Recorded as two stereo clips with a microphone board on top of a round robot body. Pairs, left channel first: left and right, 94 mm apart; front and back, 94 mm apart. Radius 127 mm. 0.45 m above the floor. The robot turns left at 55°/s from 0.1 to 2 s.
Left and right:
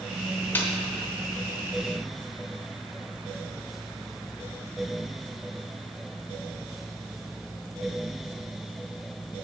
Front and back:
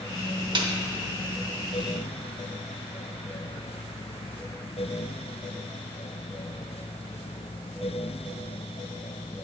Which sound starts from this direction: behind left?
A snare drum, at 0.6 s.